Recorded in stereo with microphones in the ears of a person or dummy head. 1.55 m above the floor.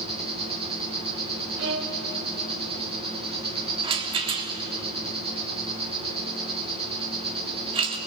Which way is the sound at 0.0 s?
30° right (ahead or behind).